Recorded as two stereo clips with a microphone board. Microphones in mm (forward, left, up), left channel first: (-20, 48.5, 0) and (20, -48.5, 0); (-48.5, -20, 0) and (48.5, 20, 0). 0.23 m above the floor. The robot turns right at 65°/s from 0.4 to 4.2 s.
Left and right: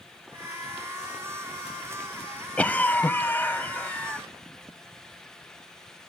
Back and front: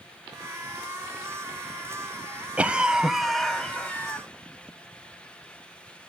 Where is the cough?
70° left, 0.9 m; by 4.2 s 175° left, 0.9 m.